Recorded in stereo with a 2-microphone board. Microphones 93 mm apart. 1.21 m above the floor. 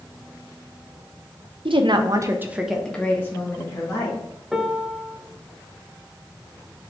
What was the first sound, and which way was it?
A woman speaking, 70° right (ahead or behind).